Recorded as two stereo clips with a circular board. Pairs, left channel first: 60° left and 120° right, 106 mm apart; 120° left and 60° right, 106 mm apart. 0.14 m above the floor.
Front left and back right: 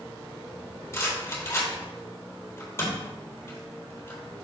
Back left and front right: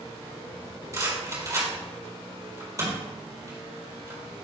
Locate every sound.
0.9 s a rattle: 5° right, 3.5 m